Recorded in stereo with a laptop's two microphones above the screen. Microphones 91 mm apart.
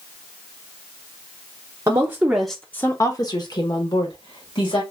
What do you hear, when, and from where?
1.9 s a woman speaking: 35° right (ahead or behind), 0.8 m; by 4.8 s 70° left (ahead or behind), 1.9 m